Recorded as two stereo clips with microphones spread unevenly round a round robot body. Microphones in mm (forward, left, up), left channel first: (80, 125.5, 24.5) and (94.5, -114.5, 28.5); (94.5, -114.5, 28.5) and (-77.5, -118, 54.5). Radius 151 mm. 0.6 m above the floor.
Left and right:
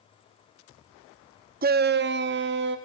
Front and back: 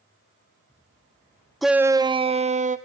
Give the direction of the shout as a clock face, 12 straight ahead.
3 o'clock.